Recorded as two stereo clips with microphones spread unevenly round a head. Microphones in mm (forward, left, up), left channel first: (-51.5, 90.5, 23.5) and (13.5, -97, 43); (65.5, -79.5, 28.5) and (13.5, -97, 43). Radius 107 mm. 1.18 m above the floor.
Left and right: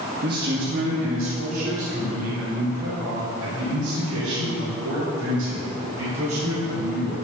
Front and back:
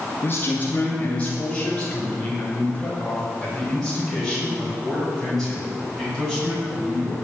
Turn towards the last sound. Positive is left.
turn(degrees=-75)